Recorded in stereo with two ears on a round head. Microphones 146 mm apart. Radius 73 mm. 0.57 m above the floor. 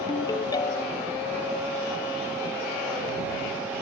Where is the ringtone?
25° left (ahead or behind).